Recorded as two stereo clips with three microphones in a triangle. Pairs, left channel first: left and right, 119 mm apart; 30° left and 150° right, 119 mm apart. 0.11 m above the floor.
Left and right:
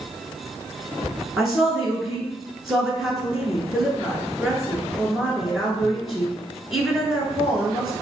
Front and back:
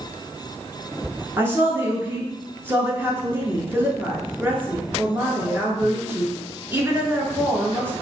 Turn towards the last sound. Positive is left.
turn(degrees=-175)